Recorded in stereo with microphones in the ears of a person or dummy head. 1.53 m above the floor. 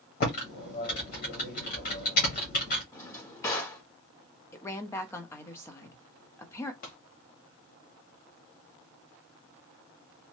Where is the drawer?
20° left (ahead or behind), 1.2 m.